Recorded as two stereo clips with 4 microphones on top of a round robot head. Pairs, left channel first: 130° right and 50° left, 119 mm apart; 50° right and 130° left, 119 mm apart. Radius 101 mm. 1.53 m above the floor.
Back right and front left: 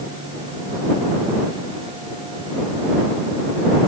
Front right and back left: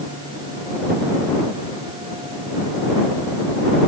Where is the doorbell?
No doorbell in this recording.